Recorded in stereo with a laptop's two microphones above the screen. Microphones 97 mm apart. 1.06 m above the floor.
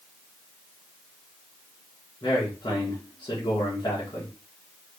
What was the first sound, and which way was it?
A man speaking, 45° left (ahead or behind).